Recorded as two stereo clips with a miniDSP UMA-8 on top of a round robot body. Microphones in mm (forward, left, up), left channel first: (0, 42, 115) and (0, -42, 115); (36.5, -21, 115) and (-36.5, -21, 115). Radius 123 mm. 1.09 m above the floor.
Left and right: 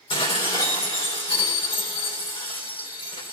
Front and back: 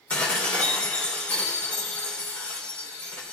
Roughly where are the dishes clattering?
Left.